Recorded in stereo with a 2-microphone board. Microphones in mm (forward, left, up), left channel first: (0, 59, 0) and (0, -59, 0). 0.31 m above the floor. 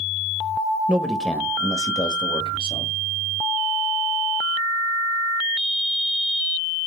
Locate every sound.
0.9 s a man speaking: 10° right (ahead or behind), 1.1 m; by 2.9 s 55° left (ahead or behind), 1.8 m